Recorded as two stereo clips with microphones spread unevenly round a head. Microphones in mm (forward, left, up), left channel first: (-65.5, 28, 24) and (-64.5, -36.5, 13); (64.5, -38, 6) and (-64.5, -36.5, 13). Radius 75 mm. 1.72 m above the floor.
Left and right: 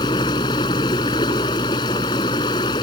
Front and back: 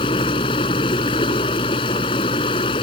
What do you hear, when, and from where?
0.0 s running water: 60° left